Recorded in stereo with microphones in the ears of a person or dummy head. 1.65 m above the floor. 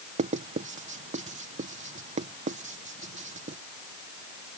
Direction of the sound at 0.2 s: 40° right (ahead or behind).